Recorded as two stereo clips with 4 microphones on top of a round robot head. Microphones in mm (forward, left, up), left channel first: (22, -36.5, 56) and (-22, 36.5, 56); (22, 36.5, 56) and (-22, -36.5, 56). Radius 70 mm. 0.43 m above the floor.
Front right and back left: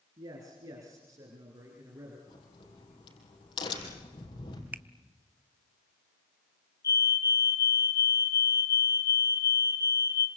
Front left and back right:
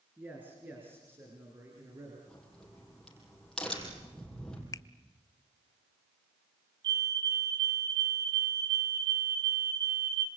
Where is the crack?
25° right, 5 m.